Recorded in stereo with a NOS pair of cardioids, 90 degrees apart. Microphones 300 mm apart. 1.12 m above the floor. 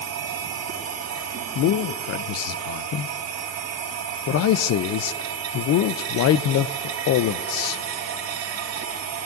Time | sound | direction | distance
0.0 | a machine running | 55° right | 3.5 m
1.6 | a man speaking | 65° left | 0.5 m